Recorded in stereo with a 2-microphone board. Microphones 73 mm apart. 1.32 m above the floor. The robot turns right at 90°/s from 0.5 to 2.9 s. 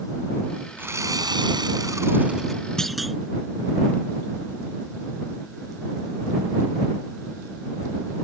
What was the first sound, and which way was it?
Sawing, 155° right.